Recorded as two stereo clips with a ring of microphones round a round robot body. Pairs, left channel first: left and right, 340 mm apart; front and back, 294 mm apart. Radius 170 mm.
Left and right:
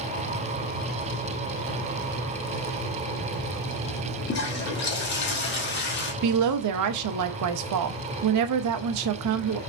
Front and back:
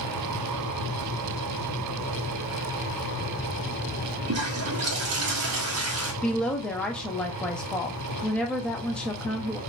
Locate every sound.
4.3 s a toilet flushing: 145° left, 1.2 m
6.2 s a woman speaking: 85° right, 0.6 m